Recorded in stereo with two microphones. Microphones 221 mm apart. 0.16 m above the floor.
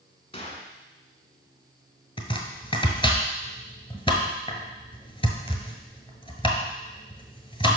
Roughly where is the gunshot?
Left.